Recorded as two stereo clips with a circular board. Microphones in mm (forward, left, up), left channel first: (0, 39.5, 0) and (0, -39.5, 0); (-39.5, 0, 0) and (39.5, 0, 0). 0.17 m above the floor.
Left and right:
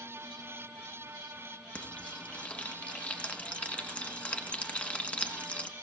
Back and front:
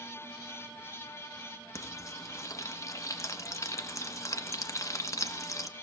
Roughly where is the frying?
Behind left.